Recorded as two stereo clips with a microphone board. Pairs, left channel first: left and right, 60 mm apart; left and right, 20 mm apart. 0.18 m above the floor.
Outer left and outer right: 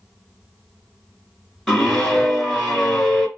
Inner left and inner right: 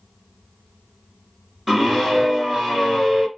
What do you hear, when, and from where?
1.7 s a scream: 5° left (ahead or behind), 2.5 m